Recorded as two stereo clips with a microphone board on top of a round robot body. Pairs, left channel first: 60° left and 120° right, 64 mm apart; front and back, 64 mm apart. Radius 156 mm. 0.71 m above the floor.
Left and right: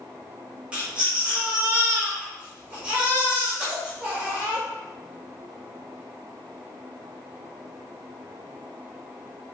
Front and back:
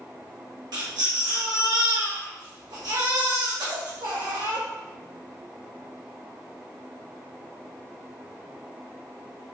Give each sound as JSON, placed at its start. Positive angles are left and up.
{"t": 0.7, "sound": "a baby crying", "azimuth_deg": 165, "distance_m": 1.4}